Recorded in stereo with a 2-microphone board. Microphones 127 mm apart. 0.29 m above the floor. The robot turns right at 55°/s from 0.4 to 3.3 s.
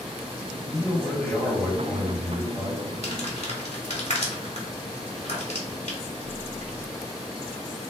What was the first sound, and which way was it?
A man speaking, 10° right (ahead or behind).